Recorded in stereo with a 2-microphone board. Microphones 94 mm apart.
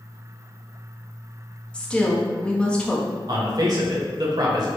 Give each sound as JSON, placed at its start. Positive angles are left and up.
{"t": 1.7, "sound": "a woman speaking", "side_deg": 10, "distance_m": 0.8}
{"t": 3.3, "sound": "a man speaking", "side_deg": -45, "distance_m": 0.9}